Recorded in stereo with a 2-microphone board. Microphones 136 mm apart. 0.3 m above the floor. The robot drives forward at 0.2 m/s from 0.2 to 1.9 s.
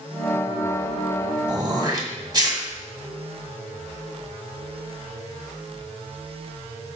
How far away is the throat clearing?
About 2 m.